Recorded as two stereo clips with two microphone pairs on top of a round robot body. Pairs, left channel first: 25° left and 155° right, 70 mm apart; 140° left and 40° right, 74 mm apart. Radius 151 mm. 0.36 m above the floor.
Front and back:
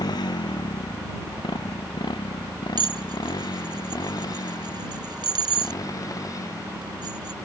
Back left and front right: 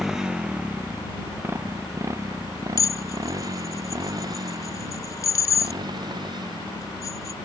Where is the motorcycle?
45° left; by 7.5 s 20° right.